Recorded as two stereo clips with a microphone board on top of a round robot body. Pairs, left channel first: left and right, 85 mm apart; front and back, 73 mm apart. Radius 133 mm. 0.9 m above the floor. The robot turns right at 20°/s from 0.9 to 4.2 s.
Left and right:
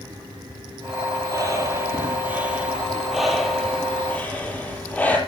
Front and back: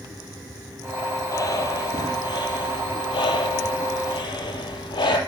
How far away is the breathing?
About 5.5 m.